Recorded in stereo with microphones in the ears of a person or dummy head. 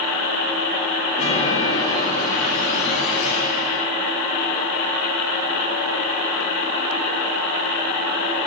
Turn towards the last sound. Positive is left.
turn(degrees=35)  # may be behind; listen again after turning